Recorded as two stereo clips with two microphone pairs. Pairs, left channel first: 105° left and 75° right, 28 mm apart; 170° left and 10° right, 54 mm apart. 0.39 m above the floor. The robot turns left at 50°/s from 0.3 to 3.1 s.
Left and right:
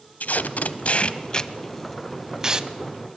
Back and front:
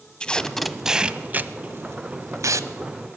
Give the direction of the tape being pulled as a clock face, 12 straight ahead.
9 o'clock.